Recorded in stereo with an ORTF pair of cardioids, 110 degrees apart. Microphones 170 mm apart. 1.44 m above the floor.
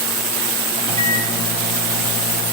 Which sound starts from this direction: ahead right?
A microwave, at 0.8 s.